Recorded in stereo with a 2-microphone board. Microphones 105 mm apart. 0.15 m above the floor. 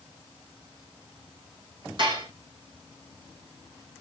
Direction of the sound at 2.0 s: 50° right (ahead or behind).